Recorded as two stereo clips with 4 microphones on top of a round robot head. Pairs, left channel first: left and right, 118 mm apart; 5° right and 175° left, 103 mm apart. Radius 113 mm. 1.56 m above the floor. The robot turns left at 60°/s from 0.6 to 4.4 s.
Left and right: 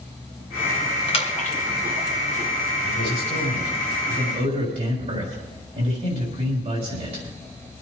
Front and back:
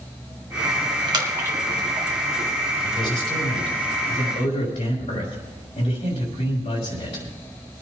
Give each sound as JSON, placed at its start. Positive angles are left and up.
{"t": 1.1, "sound": "a splash", "azimuth_deg": 130, "distance_m": 2.5}
{"t": 2.8, "sound": "a man speaking", "azimuth_deg": 40, "distance_m": 5.0}